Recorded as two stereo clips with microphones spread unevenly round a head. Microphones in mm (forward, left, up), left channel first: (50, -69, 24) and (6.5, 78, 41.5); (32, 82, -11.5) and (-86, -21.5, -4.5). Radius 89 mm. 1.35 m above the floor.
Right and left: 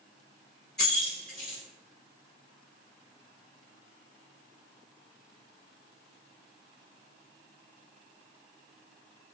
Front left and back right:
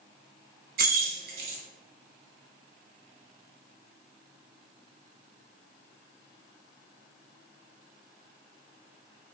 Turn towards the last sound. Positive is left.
turn(degrees=-160)